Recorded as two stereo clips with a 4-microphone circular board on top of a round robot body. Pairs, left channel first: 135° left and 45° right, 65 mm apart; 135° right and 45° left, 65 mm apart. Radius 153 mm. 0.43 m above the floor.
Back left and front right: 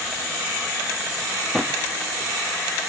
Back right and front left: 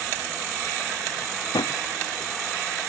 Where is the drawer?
135° right.